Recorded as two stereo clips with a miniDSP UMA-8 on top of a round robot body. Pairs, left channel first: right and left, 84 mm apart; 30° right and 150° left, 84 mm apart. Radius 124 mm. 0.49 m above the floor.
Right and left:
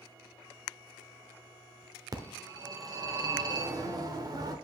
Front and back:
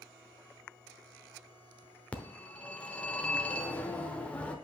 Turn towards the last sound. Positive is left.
turn(degrees=45)